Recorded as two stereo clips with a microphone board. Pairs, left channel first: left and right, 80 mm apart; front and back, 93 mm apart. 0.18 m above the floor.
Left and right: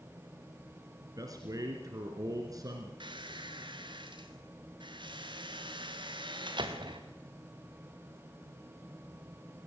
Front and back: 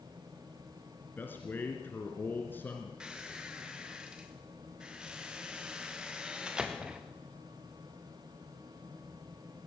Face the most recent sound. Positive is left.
turn(degrees=-100)